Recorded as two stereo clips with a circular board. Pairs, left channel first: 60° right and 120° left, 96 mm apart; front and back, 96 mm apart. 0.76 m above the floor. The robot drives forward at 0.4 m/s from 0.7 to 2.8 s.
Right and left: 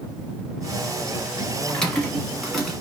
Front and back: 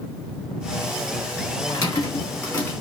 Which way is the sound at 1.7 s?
20° left.